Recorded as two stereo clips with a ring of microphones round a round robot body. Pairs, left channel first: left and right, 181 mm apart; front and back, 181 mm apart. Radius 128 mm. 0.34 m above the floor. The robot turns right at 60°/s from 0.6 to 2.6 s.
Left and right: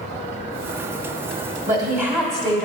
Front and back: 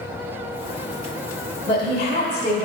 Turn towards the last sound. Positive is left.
turn(degrees=10)